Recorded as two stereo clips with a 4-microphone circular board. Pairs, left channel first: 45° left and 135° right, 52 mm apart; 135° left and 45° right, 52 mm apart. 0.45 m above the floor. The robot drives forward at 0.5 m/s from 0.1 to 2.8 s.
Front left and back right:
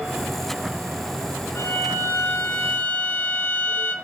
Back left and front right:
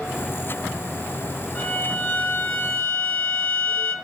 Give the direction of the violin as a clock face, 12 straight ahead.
10 o'clock.